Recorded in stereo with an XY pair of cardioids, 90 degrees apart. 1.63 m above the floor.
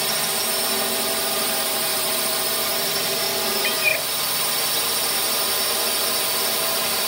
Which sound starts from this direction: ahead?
A drone, at 0.0 s.